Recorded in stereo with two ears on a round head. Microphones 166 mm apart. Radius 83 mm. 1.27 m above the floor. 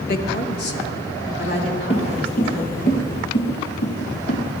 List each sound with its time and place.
0.1 s a woman speaking: 50° left (ahead or behind), 0.9 m; by 2.9 s 75° left (ahead or behind), 4.5 m
1.9 s footsteps: 35° left (ahead or behind), 1.5 m; by 4.6 s 70° left (ahead or behind), 3.5 m